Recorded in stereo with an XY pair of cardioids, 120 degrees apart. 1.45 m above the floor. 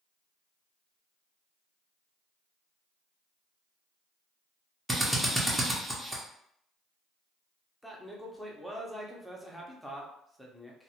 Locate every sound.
4.9 s a drill: 5° right, 0.7 m
7.8 s a man speaking: straight ahead, 0.7 m